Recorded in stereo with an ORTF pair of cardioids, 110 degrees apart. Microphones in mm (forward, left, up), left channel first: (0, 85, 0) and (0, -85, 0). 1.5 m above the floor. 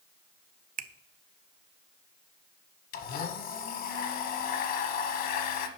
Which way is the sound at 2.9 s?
60° left.